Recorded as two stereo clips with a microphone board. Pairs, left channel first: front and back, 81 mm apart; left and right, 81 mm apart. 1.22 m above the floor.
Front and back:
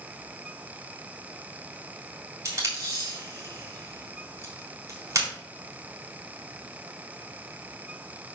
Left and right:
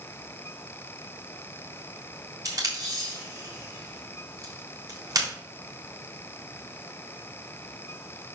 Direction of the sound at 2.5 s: 130° right.